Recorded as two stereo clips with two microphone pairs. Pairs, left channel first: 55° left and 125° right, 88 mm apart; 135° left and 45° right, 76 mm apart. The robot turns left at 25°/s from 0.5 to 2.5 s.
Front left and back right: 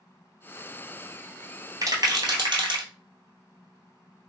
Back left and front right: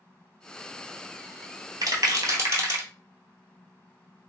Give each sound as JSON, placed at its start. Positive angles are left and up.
{"t": 1.8, "sound": "a rattle", "azimuth_deg": -75, "distance_m": 0.8}